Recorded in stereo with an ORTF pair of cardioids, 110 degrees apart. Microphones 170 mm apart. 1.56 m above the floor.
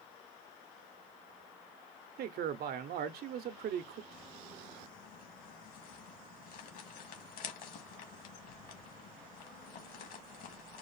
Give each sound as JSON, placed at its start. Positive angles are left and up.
{"t": 2.2, "sound": "a man speaking", "azimuth_deg": -65, "distance_m": 0.9}
{"t": 4.1, "sound": "crumpling", "azimuth_deg": 60, "distance_m": 2.0}